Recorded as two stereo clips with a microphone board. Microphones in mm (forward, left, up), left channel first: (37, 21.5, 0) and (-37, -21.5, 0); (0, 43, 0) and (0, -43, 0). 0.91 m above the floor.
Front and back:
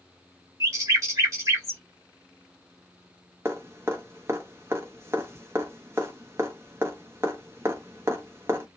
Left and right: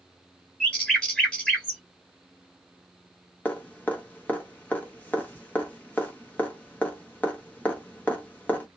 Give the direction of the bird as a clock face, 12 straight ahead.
6 o'clock.